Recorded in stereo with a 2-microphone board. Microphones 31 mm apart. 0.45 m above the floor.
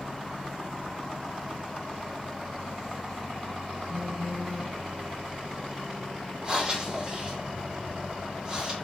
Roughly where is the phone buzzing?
Right.